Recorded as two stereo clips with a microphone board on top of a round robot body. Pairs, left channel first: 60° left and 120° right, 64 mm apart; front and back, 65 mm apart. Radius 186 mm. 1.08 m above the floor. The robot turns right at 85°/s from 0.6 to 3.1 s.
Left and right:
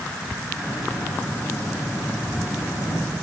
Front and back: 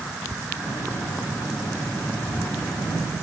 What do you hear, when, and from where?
Only background noise.